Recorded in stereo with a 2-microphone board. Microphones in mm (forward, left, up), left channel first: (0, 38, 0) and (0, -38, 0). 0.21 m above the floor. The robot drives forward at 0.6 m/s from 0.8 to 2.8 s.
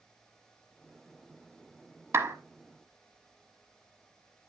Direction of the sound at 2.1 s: 40° right (ahead or behind).